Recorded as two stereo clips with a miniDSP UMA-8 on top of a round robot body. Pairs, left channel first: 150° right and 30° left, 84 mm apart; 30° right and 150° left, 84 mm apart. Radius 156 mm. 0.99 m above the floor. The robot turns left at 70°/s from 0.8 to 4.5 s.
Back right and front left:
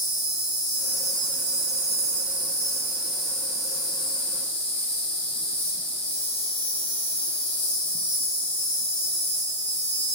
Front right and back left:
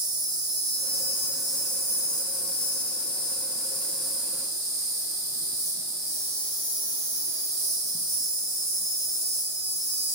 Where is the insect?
105° left, 0.7 m; by 10.2 s 150° right, 0.7 m.